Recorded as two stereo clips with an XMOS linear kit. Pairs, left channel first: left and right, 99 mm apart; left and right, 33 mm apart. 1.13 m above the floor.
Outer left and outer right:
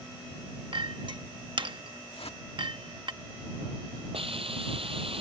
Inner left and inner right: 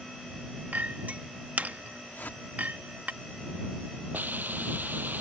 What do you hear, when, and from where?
0.7 s a clink: 55° right (ahead or behind)
2.1 s a whoosh: 85° left
4.1 s a hiss: 75° right (ahead or behind)